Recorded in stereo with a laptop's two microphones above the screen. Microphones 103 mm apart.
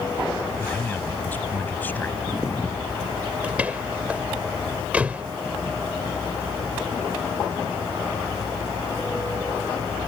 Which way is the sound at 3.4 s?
15° right (ahead or behind).